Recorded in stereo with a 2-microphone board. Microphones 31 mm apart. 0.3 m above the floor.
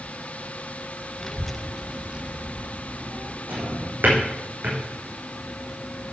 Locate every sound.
1.2 s a child speaking: 15° left (ahead or behind), 0.7 m; by 3.4 s 60° right (ahead or behind), 1.0 m
3.5 s a drawer: 85° right, 4 m